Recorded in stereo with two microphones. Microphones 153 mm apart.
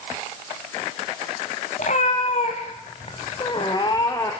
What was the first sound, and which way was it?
A cat meowing, 60° left (ahead or behind).